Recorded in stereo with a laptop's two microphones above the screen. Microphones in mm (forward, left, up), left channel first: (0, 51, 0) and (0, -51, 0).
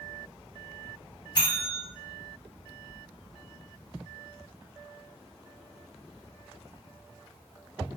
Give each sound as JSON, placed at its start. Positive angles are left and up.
{"t": 1.4, "sound": "a bell", "side_deg": 45, "distance_m": 0.9}